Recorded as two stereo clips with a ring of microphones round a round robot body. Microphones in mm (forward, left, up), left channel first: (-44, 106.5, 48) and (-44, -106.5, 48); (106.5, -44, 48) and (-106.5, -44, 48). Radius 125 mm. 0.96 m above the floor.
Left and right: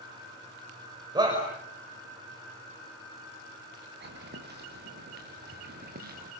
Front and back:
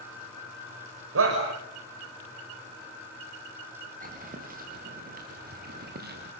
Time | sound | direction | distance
1.1 | a shout | 160° right | 5 m
4.0 | footsteps | 130° right | 6.5 m